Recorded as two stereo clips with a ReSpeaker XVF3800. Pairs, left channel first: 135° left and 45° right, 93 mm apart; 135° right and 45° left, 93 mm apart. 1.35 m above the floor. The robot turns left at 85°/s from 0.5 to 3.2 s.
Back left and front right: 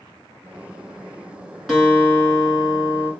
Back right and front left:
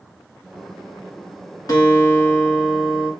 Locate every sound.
1.7 s a guitar: 140° right, 1.5 m; by 3.1 s 100° left, 1.5 m